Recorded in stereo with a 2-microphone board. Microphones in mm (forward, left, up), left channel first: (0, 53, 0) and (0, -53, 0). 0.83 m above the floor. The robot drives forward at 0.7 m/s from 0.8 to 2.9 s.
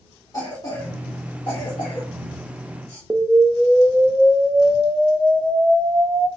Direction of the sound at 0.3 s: 35° left (ahead or behind).